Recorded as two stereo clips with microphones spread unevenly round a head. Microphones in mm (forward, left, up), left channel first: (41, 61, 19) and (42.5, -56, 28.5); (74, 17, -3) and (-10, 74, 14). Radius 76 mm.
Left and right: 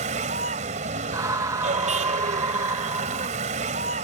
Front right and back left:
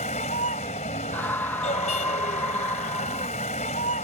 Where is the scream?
55° right.